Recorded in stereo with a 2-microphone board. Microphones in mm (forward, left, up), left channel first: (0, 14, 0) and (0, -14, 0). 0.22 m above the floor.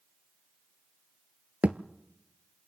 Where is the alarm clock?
I don't hear an alarm clock.